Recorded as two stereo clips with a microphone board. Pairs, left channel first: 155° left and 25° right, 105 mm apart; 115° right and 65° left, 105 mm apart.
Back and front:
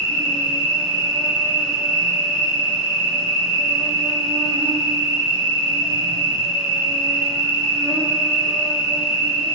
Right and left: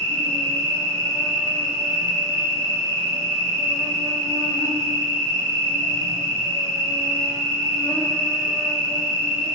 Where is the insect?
60° right, 1.9 m.